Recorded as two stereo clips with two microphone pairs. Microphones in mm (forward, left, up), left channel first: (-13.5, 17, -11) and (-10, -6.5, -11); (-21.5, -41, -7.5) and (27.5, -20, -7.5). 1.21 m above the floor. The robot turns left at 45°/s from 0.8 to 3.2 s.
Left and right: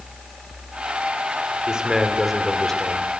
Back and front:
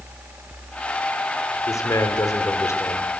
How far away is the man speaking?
About 3 m.